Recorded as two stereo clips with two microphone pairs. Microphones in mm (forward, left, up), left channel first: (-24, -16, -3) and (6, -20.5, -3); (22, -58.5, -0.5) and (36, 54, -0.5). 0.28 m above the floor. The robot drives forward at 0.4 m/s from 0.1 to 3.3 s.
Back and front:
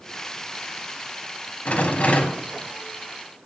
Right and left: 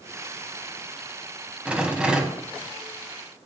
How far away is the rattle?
About 1.3 m.